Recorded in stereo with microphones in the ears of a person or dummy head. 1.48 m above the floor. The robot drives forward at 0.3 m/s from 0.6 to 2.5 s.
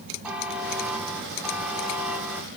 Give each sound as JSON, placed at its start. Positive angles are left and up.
{"t": 0.2, "sound": "a buzzer", "side_deg": -5, "distance_m": 2.0}